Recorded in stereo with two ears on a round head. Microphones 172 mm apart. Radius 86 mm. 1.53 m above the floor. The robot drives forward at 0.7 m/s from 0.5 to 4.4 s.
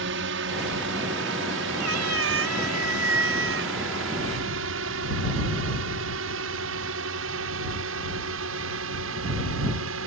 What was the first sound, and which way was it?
A drone, 70° right (ahead or behind).